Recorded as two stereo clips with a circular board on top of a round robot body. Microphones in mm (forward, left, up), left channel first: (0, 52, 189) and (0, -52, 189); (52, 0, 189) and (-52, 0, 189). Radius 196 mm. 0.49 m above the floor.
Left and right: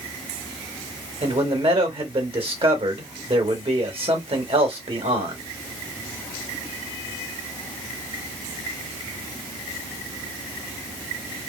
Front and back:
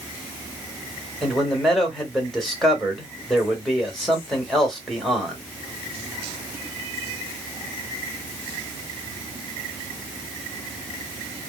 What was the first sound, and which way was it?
A man speaking, 90° right.